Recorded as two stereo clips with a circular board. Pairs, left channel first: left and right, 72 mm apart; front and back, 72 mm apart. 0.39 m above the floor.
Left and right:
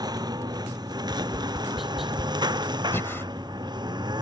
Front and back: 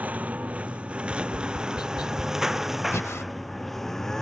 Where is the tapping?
Straight ahead.